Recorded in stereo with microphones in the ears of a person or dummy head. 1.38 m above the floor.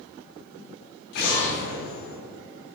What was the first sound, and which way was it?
An explosion, 75° left (ahead or behind).